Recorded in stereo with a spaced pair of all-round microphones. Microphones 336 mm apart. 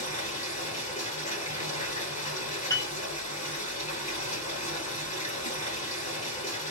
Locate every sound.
0.0 s running water: 20° left (ahead or behind), 1.7 m
2.7 s a piano: 10° left (ahead or behind), 0.7 m